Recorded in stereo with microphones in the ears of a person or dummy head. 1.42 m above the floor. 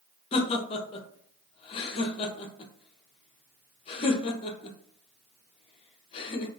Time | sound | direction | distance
0.3 | laughter | 35° left (ahead or behind) | 0.7 m